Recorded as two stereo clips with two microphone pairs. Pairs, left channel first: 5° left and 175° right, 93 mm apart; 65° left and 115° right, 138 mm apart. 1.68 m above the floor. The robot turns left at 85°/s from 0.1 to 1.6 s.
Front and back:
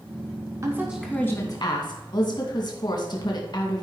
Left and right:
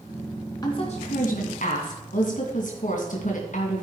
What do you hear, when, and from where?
0.6 s a woman speaking: 130° left, 2.5 m; by 3.8 s 45° left, 2.5 m